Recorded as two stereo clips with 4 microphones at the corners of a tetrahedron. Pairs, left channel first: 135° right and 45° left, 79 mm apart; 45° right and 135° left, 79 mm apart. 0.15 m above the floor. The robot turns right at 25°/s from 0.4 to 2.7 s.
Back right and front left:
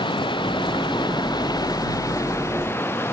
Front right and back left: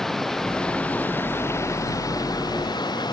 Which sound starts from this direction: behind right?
Running water, at 0.0 s.